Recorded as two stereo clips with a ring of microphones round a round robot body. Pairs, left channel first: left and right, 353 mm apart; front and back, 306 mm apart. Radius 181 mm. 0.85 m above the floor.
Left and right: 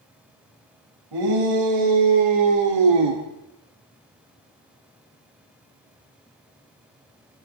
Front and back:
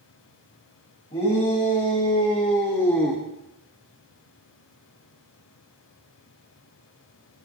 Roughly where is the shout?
Right.